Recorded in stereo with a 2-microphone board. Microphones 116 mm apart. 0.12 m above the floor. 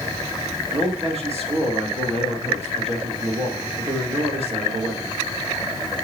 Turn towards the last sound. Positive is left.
turn(degrees=-60)  # may be behind; listen again after turning